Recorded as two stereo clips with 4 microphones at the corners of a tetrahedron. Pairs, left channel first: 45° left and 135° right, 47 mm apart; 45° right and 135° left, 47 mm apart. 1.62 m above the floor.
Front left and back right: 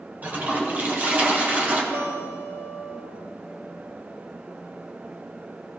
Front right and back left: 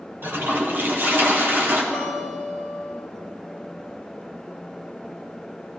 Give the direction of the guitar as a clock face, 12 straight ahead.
5 o'clock.